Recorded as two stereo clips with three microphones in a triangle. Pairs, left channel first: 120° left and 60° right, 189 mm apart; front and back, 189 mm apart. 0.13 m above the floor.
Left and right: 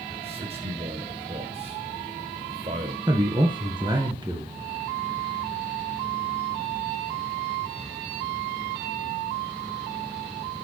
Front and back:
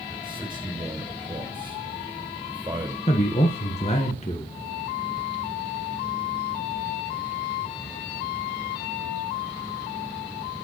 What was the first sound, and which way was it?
A man speaking, 115° right.